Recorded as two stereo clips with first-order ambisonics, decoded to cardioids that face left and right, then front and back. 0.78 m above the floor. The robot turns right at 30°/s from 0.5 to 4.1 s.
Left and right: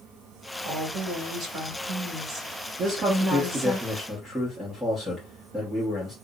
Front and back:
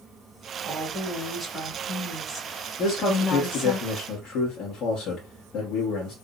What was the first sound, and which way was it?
A woman speaking, 110° right.